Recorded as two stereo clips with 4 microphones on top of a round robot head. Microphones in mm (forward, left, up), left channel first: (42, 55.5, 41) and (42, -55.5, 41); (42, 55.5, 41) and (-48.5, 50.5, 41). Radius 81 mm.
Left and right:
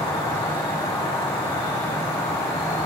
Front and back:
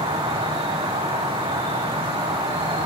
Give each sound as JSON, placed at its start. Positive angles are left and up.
{"t": 0.0, "sound": "an insect", "azimuth_deg": 165, "distance_m": 9.5}